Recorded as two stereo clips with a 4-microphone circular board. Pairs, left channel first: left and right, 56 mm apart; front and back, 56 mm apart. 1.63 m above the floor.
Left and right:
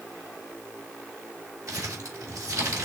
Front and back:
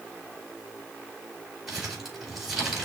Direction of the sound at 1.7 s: 100° right.